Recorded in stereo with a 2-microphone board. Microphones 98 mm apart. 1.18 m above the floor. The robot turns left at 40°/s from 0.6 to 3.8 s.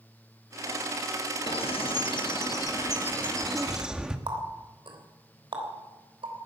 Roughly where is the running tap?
Right.